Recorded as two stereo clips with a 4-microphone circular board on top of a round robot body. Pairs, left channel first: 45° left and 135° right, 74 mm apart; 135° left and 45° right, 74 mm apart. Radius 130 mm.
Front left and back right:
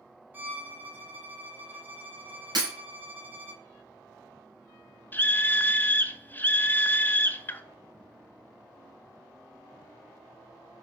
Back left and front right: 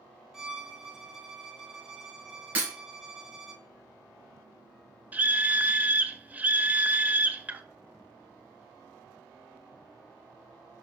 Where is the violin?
120° right, 1.3 m.